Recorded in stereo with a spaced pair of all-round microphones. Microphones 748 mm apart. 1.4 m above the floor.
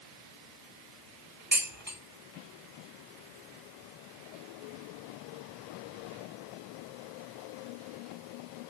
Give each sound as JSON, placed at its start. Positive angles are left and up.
{"t": 1.5, "sound": "dishes clattering", "side_deg": -15, "distance_m": 7.5}